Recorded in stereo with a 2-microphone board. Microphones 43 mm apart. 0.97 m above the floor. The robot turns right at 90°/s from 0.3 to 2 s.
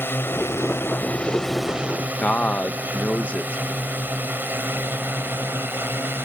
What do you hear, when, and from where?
0.0 s a drone: 60° left (ahead or behind); by 6.2 s 55° right (ahead or behind)
2.2 s a man speaking: 35° left (ahead or behind)